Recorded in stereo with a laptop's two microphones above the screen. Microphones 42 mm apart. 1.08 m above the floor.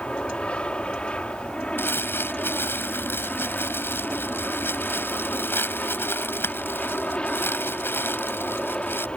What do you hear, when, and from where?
0.0 s an aircraft: 30° left (ahead or behind)
1.8 s crumpling: 75° left (ahead or behind)